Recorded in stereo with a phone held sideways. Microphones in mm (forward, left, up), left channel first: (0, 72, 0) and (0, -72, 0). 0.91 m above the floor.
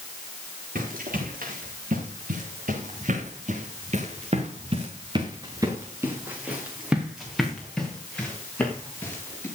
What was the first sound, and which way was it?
Running footsteps, 85° right.